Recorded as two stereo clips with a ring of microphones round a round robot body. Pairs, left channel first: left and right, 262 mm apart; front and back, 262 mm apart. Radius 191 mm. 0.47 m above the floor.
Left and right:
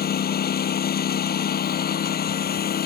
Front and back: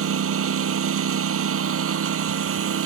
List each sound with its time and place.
0.0 s a lawn mower: 145° left